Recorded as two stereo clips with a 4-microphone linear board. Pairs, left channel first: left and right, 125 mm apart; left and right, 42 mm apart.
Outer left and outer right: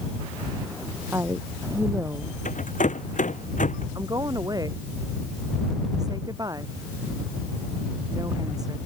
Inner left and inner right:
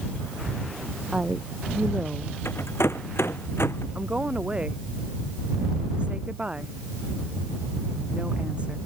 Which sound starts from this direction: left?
A rattle, at 2.5 s.